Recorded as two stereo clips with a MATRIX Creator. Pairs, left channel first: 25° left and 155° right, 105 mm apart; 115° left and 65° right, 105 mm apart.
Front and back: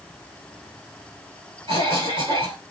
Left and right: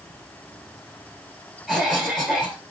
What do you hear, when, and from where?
1.7 s a cough: 160° right, 2 m